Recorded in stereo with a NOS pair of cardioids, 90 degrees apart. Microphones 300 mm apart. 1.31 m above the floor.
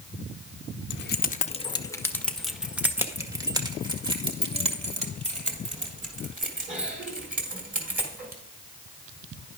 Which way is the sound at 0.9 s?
40° left.